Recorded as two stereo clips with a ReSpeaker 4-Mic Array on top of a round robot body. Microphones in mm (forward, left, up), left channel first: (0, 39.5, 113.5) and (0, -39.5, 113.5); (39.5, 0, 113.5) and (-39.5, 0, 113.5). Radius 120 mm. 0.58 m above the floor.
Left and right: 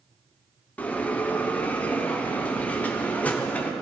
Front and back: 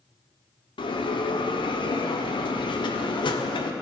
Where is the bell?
15° left, 0.9 m.